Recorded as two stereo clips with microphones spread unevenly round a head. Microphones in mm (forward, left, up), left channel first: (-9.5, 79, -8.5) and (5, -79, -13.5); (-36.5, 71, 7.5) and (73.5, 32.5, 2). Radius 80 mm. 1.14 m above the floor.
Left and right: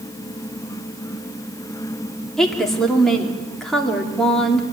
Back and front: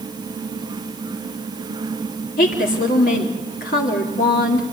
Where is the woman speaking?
Straight behind, 3 m.